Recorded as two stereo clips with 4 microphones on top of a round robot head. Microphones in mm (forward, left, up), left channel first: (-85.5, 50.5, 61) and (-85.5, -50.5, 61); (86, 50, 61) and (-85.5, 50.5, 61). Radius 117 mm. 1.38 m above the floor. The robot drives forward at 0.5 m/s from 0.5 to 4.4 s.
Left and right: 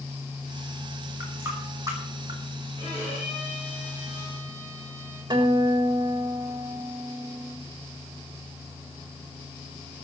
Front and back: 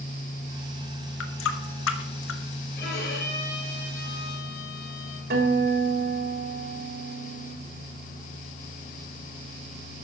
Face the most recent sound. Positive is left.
turn(degrees=-140)